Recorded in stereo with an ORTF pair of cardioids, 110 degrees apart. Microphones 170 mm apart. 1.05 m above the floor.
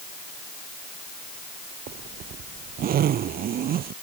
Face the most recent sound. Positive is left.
turn(degrees=-60)